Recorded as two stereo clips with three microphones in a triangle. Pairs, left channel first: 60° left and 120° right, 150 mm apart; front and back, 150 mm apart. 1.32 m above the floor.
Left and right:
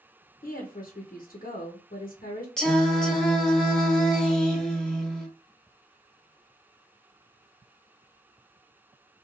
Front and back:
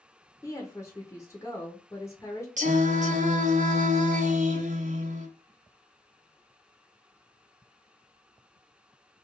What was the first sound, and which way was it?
A woman speaking, 70° left.